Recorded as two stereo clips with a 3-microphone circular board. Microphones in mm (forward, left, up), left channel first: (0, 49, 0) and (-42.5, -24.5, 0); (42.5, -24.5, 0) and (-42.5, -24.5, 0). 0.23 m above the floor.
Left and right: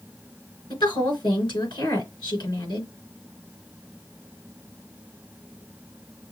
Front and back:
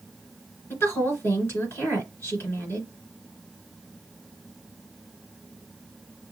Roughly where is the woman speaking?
Ahead left.